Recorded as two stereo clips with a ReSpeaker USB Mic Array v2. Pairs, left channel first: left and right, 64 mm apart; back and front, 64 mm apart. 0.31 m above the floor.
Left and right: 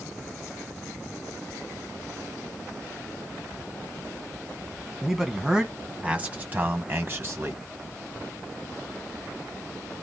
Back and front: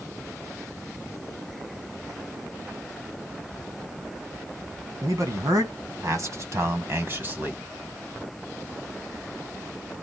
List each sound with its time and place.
5.0 s a man speaking: 5° right, 2.5 m; by 7.6 s 55° right, 2 m